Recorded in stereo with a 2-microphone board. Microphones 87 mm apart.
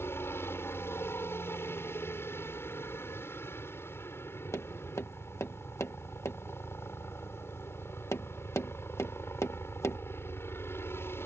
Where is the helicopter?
25° left (ahead or behind).